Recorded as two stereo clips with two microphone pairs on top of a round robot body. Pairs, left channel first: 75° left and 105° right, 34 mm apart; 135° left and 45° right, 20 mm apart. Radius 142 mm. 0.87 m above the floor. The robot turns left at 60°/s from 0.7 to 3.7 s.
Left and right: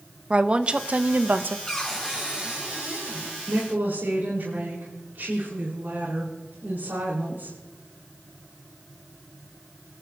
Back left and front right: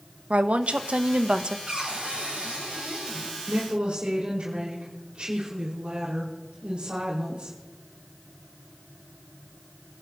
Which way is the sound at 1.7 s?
5° left.